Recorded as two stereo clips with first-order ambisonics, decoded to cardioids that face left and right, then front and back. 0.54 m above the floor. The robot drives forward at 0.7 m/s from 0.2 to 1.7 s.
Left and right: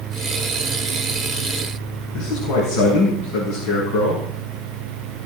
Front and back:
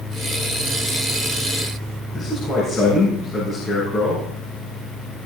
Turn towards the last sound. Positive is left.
turn(degrees=75)